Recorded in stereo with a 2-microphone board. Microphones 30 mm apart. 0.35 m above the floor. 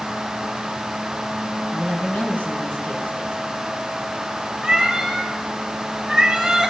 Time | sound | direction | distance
1.7 | a woman speaking | 75° left (ahead or behind) | 3 m
4.6 | a cat meowing | 20° right (ahead or behind) | 2 m